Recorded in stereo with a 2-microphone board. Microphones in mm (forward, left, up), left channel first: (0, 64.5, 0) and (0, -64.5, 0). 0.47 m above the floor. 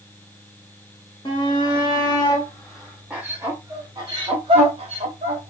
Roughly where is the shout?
Left.